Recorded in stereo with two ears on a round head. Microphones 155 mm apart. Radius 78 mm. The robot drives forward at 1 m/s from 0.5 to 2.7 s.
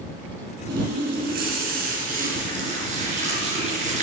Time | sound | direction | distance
0.7 | a running tap | 75° right (ahead or behind) | 3 m